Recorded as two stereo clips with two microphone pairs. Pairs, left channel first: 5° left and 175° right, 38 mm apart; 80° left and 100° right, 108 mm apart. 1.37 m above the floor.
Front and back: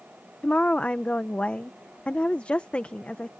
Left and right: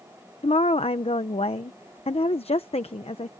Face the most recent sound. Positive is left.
turn(degrees=55)